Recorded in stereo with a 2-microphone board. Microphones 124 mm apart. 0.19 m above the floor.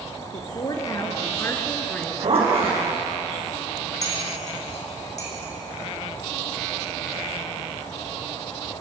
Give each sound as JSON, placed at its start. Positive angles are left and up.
{"t": 0.3, "sound": "a woman speaking", "side_deg": 45, "distance_m": 3.5}
{"t": 1.9, "sound": "a zipper", "side_deg": -55, "distance_m": 6.0}
{"t": 4.0, "sound": "cutlery clinking", "side_deg": 70, "distance_m": 5.0}